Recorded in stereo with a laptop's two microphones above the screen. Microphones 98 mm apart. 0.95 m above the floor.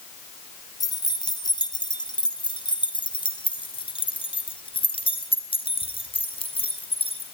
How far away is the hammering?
No hammering in this recording.